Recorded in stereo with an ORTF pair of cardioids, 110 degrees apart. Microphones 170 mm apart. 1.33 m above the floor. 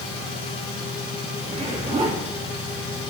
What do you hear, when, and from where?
0.0 s a machine running: 35° left, 3 m
1.4 s a zipper: 35° right, 2.5 m